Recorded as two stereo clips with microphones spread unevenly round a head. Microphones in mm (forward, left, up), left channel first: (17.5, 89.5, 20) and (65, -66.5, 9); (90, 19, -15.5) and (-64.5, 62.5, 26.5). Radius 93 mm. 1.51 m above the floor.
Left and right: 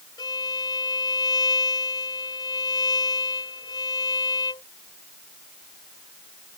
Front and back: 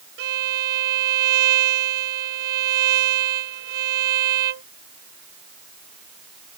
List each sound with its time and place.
0.2 s a violin: 175° left